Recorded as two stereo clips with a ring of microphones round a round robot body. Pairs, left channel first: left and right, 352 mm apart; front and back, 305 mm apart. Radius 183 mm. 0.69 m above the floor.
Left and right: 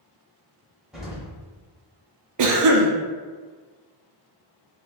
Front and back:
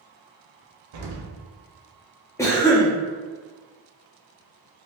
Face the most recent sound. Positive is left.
turn(degrees=-80)